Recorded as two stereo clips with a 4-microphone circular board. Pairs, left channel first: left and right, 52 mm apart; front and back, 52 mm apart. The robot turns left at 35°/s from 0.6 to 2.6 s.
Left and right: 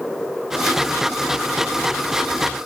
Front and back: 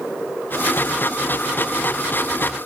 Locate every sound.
Only background noise.